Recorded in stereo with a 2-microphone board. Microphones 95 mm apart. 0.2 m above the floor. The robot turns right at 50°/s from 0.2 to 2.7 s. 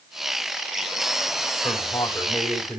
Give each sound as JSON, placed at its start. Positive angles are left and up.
{"t": 1.6, "sound": "a man speaking", "azimuth_deg": 125, "distance_m": 6.0}